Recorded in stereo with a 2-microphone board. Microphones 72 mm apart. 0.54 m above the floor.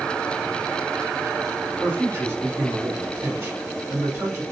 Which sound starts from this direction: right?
A man speaking, at 1.8 s.